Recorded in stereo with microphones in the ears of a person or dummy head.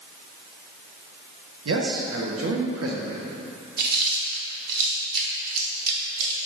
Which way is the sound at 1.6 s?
75° right (ahead or behind).